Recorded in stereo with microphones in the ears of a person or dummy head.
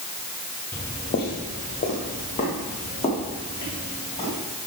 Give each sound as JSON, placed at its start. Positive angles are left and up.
{"t": 0.7, "sound": "footsteps", "side_deg": 10, "distance_m": 1.4}